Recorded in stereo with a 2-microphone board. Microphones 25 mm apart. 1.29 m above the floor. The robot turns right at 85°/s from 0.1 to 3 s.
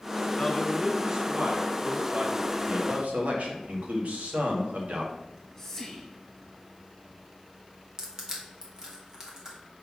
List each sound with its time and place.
0.4 s a man speaking: 140° left, 2 m; by 2.5 s 35° right, 2 m
2.6 s a man speaking: 40° right (ahead or behind), 1.8 m; by 5.1 s 70° right (ahead or behind), 1.8 m
5.2 s whispering: 15° left (ahead or behind), 1.6 m
8.0 s crushing: 25° right (ahead or behind), 1.8 m